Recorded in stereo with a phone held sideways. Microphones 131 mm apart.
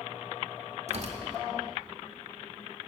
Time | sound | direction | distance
0.9 | tearing paper | 55° right (ahead or behind) | 0.8 m